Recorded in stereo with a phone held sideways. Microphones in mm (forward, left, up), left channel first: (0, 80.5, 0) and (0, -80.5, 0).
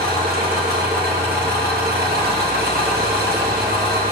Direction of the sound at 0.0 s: 80° right.